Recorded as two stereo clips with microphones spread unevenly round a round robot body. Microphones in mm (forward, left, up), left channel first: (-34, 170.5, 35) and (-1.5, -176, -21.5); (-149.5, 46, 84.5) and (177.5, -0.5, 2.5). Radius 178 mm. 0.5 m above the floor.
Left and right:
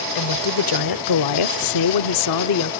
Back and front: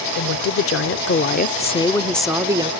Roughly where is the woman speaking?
Behind left.